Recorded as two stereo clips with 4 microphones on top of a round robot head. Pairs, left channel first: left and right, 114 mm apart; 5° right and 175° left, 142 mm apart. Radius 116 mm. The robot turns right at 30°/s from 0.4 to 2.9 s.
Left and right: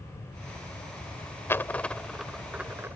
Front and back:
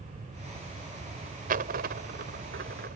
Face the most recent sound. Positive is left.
turn(degrees=-160)